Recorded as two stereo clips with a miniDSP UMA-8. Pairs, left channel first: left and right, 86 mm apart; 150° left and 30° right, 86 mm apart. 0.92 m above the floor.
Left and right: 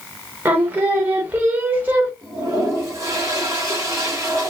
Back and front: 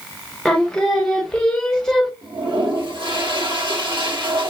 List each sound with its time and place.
0.5 s singing: 130° right, 0.9 m
2.2 s a toilet flushing: 40° right, 2 m